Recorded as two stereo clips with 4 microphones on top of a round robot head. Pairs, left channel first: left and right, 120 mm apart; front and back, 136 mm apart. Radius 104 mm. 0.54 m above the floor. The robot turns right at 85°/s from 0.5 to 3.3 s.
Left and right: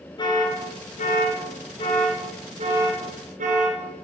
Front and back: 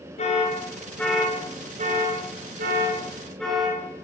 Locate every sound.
0.2 s an alarm: 40° left, 9 m; by 3.8 s 85° right, 9 m